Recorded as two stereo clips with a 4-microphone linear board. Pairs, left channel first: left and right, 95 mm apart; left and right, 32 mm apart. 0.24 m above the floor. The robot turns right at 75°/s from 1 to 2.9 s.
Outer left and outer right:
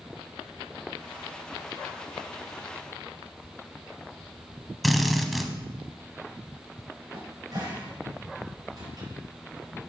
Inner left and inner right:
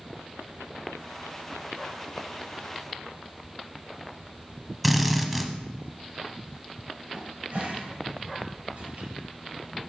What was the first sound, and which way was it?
A drill, centre (ahead or behind).